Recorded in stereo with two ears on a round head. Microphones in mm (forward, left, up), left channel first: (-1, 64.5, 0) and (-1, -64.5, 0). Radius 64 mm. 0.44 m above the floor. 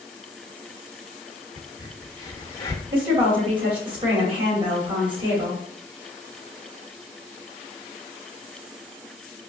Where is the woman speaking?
35° right (ahead or behind), 1.8 m.